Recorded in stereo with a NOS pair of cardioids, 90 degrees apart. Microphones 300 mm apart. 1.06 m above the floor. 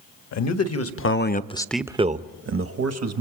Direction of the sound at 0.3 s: 65° left.